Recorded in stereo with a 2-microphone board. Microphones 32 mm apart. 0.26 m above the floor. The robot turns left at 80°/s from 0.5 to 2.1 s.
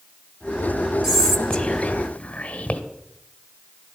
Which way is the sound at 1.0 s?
165° right.